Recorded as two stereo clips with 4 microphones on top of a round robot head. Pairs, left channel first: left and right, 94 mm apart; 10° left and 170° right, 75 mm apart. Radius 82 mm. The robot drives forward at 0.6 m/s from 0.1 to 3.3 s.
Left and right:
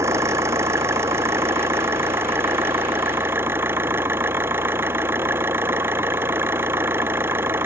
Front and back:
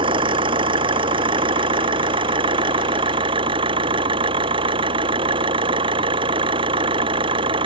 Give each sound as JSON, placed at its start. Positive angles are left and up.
{"t": 0.0, "sound": "an engine running", "azimuth_deg": -155}